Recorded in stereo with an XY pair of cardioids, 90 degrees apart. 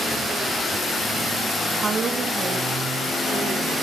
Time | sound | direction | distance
1.8 | a woman speaking | 35° right | 1.1 m